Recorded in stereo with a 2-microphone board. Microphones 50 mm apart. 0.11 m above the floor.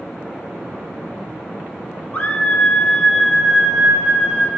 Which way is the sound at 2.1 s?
35° left (ahead or behind).